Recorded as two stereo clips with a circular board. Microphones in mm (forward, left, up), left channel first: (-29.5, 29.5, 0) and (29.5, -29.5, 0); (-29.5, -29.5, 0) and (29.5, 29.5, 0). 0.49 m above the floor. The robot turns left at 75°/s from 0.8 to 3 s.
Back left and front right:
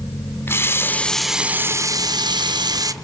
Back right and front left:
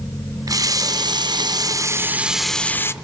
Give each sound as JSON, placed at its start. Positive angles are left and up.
{"t": 0.5, "sound": "a running tap", "azimuth_deg": 80, "distance_m": 0.6}